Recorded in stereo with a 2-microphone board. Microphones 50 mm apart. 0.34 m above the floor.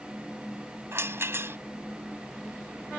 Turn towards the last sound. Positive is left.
turn(degrees=-60)  # may be behind; listen again after turning